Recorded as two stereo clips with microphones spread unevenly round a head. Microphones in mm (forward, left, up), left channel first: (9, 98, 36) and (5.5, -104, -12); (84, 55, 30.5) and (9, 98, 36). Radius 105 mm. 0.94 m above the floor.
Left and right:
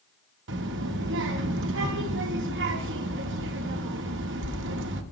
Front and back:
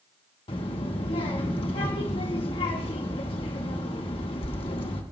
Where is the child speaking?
65° right, 1.7 m.